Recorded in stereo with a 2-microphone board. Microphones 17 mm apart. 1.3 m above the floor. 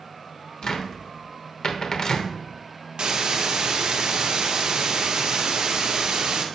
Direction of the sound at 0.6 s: 45° left (ahead or behind).